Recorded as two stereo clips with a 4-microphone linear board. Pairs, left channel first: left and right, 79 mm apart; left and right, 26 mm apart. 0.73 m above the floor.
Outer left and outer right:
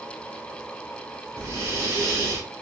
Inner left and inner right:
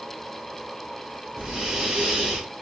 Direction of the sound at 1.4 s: 40° right (ahead or behind).